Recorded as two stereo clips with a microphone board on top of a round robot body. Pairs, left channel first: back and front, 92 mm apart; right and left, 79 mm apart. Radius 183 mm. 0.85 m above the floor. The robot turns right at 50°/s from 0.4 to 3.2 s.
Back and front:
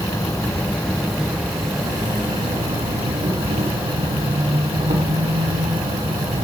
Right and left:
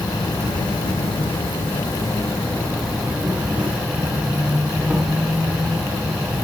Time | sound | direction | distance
0.0 | an insect | 125° right | 4 m